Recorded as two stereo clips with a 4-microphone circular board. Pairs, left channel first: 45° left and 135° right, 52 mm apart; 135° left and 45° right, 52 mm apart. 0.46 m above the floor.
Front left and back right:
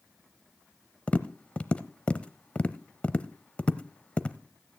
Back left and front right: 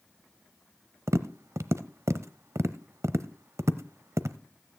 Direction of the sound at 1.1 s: 20° right.